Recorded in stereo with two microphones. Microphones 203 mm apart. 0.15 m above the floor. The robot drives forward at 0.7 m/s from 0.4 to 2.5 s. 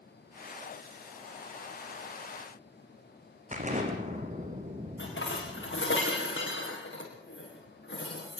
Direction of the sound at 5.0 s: 70° left (ahead or behind).